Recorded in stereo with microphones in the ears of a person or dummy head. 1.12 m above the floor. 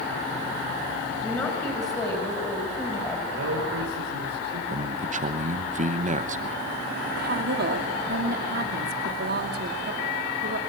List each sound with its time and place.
1.2 s a woman speaking: 25° left (ahead or behind), 5 m
3.3 s a man speaking: 80° right, 5 m
4.7 s a man speaking: 40° right (ahead or behind), 1.0 m
7.2 s a woman speaking: 60° right (ahead or behind), 2.5 m